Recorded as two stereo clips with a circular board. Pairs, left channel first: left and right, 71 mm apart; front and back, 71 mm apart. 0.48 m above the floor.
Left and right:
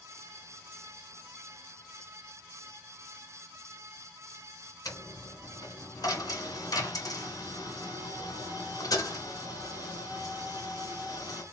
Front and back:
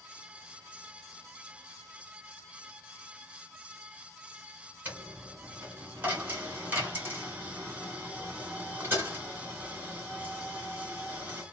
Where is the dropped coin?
120° left, 1.7 m.